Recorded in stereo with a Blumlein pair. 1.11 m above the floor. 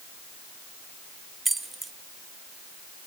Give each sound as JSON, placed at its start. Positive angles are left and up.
{"t": 1.4, "sound": "keys jangling", "azimuth_deg": -10, "distance_m": 0.6}